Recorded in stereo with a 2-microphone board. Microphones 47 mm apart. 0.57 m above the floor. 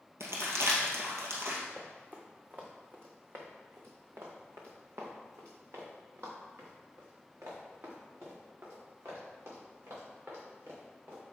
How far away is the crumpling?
About 2 m.